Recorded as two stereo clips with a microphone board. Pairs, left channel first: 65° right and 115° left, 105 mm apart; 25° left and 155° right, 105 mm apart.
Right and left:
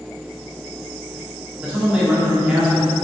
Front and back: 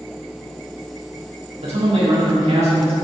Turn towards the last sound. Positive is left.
turn(degrees=-170)